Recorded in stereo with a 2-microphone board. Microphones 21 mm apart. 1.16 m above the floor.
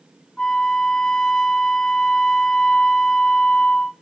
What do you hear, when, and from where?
0.4 s a flute: 50° left (ahead or behind), 1.1 m